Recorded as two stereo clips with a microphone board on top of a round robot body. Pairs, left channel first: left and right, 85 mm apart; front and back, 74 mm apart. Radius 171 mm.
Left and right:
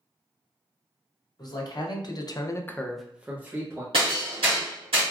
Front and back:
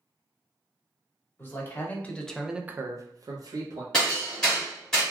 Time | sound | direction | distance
1.4 | a man speaking | 55° left | 1.1 m
3.9 | hammering | 80° right | 0.6 m